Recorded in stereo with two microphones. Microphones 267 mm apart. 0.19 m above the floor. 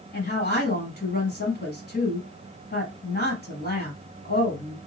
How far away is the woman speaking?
About 1.2 m.